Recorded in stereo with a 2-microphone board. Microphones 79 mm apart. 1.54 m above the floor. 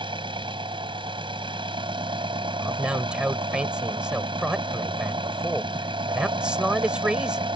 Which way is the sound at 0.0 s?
85° right.